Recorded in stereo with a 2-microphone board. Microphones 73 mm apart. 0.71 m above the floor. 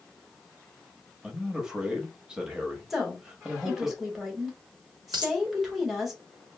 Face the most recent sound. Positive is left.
turn(degrees=-75)  # may be behind; listen again after turning